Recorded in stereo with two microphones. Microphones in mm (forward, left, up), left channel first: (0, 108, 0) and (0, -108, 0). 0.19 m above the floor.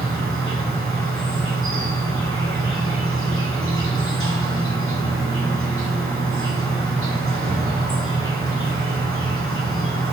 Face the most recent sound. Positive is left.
turn(degrees=-75)  # may be behind; listen again after turning